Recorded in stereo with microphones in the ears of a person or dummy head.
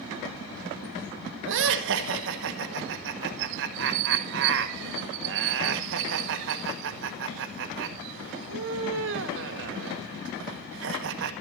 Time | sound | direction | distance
1.4 | laughter | 65° right (ahead or behind) | 1.8 m